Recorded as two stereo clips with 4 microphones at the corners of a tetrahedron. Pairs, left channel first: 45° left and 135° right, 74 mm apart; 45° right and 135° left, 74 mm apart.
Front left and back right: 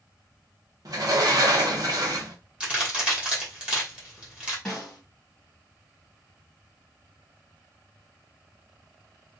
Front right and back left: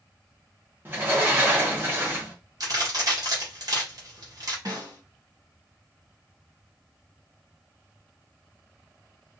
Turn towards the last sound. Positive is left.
turn(degrees=125)